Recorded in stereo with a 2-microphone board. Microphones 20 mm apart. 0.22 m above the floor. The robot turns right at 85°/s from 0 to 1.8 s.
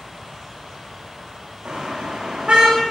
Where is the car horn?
60° right (ahead or behind), 8 m; by 2.8 s 75° right (ahead or behind), 8 m.